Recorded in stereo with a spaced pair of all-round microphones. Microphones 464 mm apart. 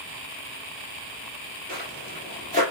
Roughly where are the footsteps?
Centre.